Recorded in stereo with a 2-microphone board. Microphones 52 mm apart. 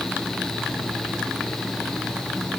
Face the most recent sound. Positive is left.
No sound to turn to.